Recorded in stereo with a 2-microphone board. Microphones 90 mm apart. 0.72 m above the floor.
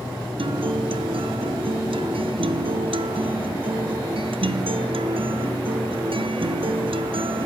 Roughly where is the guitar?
Right.